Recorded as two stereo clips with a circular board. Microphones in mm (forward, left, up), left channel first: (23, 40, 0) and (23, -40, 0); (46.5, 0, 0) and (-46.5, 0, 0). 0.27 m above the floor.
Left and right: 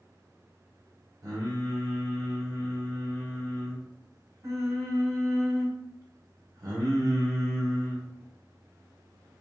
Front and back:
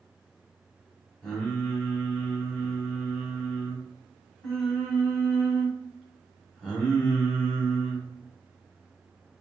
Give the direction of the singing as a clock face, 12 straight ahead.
3 o'clock.